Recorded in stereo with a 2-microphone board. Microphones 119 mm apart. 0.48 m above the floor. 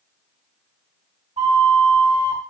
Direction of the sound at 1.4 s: 55° right (ahead or behind).